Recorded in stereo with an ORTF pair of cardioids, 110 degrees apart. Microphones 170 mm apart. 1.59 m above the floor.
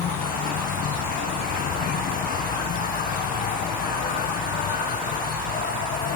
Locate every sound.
0.0 s an insect: 60° left